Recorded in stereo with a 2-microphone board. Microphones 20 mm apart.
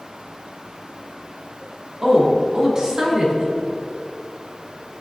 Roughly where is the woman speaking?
Right.